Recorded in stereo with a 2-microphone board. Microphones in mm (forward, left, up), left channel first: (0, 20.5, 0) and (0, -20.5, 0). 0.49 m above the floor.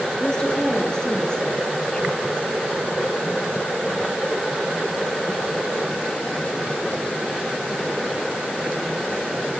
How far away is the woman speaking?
About 8 m.